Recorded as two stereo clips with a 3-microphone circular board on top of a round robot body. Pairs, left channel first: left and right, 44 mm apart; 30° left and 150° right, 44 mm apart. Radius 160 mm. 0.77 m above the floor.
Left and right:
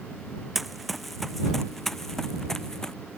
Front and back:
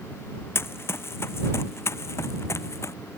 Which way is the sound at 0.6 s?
Straight ahead.